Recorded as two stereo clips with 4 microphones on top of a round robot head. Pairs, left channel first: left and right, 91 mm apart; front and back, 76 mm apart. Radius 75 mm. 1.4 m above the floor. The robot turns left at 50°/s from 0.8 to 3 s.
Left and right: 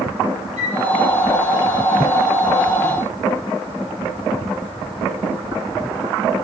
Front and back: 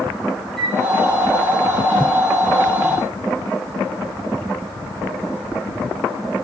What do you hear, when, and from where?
0.6 s a flute: 90° right, 3 m